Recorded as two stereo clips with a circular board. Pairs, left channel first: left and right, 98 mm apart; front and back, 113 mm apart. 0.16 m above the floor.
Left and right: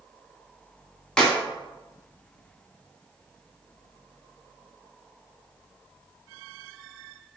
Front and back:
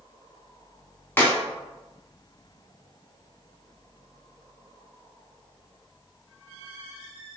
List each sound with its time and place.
1.2 s a clap: 25° left, 0.8 m